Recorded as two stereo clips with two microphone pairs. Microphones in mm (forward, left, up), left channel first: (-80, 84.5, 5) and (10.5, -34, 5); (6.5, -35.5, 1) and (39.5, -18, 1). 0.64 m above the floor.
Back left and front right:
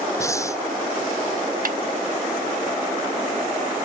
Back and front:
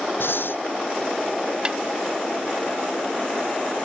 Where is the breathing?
165° right.